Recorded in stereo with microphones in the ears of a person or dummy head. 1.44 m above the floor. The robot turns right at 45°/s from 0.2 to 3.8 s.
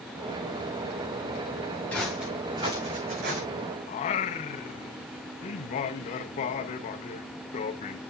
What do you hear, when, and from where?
1.9 s footsteps: 5° left (ahead or behind), 6.5 m; by 3.4 s 60° right (ahead or behind), 5.5 m
3.9 s singing: 30° left (ahead or behind), 0.9 m